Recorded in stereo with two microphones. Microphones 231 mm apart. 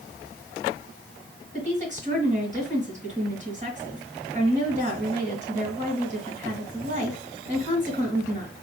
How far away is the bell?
I don't hear a bell.